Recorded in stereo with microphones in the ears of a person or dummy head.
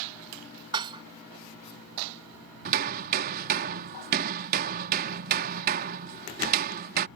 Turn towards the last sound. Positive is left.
turn(degrees=-45)  # may be behind; listen again after turning